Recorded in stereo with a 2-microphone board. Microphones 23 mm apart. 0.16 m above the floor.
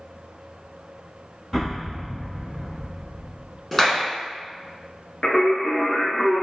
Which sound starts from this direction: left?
Singing, at 5.2 s.